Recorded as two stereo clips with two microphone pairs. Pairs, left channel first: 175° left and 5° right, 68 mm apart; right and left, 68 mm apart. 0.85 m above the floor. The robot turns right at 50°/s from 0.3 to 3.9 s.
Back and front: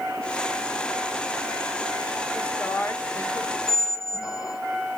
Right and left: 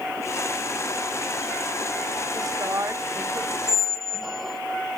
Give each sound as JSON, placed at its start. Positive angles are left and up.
{"t": 2.3, "sound": "a woman speaking", "azimuth_deg": 100, "distance_m": 2.5}
{"t": 3.7, "sound": "a squeak", "azimuth_deg": 170, "distance_m": 1.3}